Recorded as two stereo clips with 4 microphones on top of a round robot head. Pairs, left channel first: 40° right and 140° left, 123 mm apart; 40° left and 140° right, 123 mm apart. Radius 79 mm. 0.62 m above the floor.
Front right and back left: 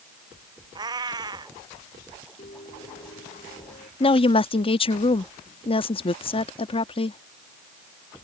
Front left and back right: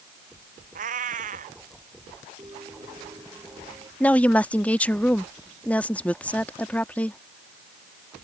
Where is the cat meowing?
160° right.